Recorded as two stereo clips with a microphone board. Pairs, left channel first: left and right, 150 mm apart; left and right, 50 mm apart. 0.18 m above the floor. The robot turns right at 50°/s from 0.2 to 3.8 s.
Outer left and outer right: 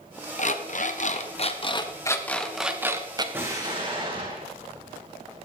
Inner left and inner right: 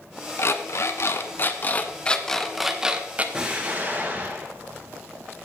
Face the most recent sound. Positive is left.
turn(degrees=-35)  # may be behind; listen again after turning